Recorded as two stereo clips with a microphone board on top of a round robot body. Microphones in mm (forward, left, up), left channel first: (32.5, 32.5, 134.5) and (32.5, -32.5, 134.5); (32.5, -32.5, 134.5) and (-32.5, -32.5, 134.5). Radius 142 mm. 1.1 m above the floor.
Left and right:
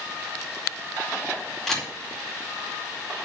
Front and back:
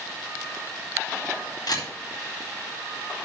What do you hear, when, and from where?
1.7 s a camera shutter: 5° left, 4.5 m